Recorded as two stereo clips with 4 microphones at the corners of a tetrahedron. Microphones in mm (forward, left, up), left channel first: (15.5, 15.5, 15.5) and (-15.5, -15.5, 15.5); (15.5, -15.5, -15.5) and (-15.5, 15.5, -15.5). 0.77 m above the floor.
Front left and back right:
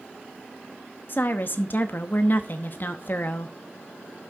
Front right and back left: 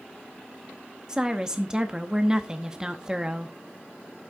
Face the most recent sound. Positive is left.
turn(degrees=65)